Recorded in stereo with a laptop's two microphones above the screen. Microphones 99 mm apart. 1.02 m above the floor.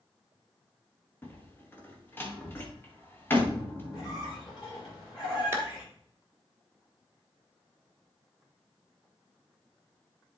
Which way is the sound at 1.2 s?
20° left (ahead or behind).